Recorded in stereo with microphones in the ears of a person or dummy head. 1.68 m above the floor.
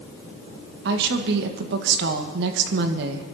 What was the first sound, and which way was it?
A woman speaking, 65° right (ahead or behind).